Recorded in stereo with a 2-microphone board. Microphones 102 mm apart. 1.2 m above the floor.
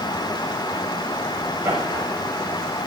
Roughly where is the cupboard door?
No cupboard door in this recording.